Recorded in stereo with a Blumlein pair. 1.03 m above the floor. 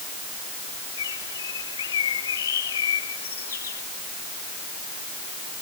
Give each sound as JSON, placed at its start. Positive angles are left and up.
{"t": 1.0, "sound": "a bird", "azimuth_deg": 65}